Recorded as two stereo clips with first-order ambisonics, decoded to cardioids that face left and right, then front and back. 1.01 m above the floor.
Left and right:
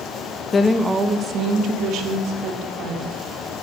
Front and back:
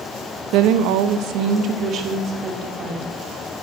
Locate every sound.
0.5 s a woman speaking: 155° left, 0.9 m; by 3.1 s 120° right, 3.5 m